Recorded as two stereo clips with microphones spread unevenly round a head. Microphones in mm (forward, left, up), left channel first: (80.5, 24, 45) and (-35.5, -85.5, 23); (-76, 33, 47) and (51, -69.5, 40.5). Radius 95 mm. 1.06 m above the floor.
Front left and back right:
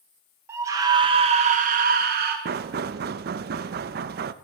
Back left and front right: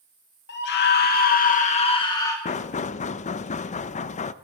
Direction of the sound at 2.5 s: 170° right.